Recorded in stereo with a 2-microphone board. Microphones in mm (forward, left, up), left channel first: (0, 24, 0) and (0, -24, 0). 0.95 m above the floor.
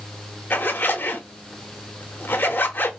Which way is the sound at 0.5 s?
45° left (ahead or behind).